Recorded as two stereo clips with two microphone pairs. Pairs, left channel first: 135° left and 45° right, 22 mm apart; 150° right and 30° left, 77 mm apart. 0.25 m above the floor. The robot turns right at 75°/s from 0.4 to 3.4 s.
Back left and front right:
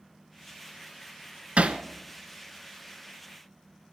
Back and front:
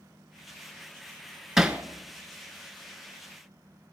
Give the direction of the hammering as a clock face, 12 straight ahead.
2 o'clock.